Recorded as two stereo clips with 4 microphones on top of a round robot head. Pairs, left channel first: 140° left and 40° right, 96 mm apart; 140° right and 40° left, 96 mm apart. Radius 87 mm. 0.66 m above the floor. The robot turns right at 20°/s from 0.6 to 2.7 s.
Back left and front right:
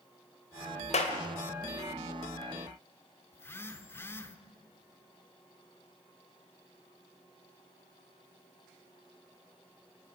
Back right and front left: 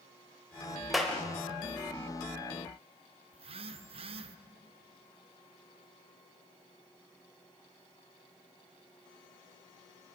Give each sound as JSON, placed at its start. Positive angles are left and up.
{"t": 0.9, "sound": "a clap", "azimuth_deg": 130, "distance_m": 2.5}
{"t": 3.3, "sound": "a phone buzzing", "azimuth_deg": 70, "distance_m": 1.0}